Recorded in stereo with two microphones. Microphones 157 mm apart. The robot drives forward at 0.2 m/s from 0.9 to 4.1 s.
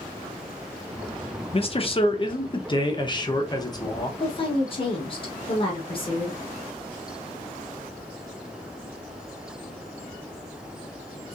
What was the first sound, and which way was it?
A man speaking, 40° left (ahead or behind).